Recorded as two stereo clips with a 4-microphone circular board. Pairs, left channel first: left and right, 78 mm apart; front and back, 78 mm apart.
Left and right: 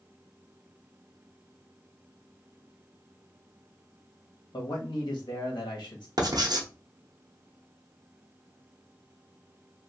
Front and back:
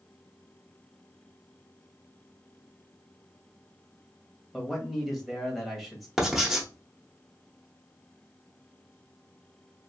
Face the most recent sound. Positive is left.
turn(degrees=-95)